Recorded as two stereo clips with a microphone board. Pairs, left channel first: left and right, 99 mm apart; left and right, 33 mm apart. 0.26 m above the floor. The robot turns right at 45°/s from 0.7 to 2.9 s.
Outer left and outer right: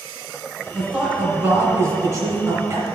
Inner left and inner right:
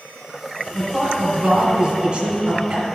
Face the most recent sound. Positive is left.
turn(degrees=-60)